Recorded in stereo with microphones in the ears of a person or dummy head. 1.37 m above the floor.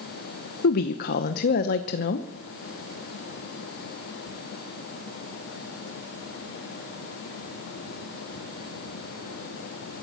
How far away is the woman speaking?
About 0.9 m.